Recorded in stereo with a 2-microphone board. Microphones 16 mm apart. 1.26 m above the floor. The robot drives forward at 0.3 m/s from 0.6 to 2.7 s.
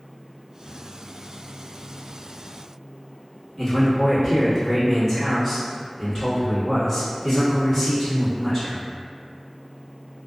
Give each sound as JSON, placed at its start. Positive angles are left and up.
{"t": 3.6, "sound": "a man speaking", "side_deg": 25, "distance_m": 1.4}